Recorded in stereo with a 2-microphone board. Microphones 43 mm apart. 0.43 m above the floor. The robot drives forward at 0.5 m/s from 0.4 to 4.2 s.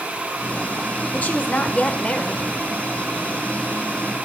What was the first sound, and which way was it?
A woman speaking, 40° left (ahead or behind).